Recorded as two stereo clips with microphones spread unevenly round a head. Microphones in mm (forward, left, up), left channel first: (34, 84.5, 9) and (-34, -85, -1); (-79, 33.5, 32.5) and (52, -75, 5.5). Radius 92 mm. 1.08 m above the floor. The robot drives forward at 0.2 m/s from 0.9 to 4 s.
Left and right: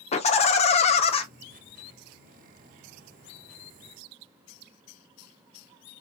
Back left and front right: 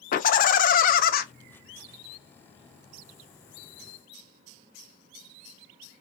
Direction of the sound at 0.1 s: 115° left.